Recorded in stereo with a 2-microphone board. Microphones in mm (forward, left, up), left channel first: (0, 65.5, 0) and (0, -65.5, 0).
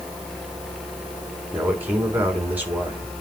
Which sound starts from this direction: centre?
A man speaking, at 1.5 s.